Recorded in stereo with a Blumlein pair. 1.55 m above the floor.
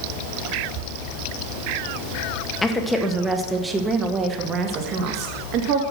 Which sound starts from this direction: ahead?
A woman speaking, at 2.6 s.